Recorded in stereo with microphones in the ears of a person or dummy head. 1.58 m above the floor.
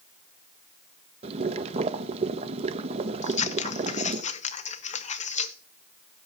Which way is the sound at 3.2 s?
40° left (ahead or behind).